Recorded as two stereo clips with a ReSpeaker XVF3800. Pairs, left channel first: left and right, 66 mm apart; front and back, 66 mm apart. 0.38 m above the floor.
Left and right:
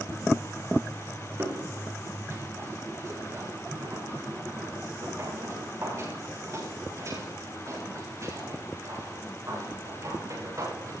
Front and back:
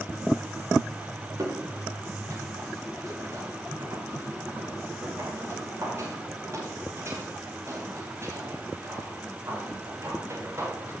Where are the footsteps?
140° right, 8.5 m; by 10.9 s 125° right, 13 m.